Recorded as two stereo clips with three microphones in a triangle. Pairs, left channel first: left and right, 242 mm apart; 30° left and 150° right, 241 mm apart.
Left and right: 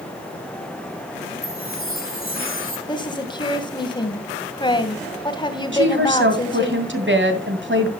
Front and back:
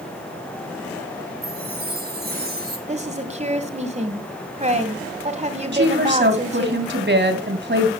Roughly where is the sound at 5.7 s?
Behind right.